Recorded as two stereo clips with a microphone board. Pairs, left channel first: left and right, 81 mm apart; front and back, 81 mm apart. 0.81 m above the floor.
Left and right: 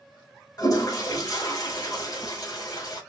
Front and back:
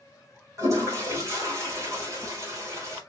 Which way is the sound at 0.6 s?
130° left.